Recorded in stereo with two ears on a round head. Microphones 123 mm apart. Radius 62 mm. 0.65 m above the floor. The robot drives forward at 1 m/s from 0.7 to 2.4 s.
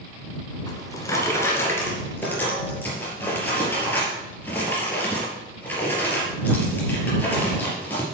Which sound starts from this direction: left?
A drawer, at 0.7 s.